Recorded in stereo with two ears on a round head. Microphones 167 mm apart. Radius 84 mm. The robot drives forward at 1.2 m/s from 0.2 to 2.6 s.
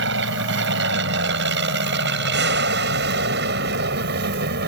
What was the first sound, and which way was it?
An aircraft, 65° right (ahead or behind).